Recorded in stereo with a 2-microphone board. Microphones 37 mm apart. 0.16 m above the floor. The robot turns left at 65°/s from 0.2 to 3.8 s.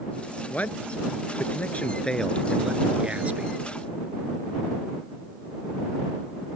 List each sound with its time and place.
0.5 s a man speaking: 135° left; by 3.6 s 65° right